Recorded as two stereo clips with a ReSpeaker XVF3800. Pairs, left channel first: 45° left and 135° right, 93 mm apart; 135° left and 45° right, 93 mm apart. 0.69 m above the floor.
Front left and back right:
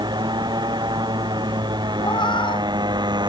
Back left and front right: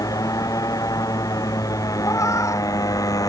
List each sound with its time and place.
0.0 s a motorcycle: 175° right
2.0 s a cat meowing: 80° left